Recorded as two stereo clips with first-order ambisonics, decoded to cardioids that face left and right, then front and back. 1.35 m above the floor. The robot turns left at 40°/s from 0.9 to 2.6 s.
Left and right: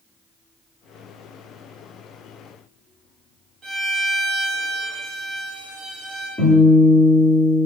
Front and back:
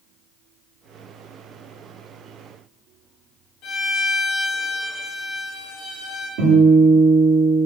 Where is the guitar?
170° left, 1.4 m.